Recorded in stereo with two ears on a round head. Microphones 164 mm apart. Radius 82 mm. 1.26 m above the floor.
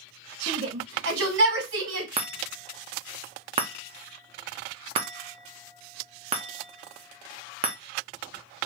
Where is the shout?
75° right (ahead or behind), 2 m.